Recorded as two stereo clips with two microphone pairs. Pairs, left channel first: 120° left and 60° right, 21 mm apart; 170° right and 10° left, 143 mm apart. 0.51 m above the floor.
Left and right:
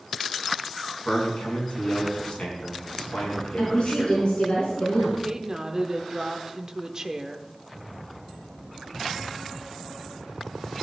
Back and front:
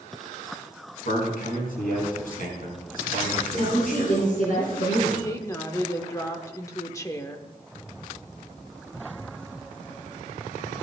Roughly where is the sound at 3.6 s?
Behind.